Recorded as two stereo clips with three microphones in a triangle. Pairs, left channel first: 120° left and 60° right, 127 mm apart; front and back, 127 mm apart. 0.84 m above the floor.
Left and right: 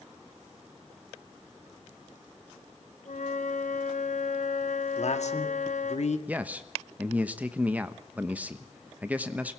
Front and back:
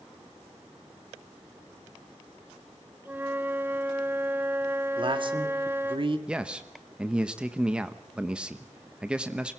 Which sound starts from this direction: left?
A flute, at 3.0 s.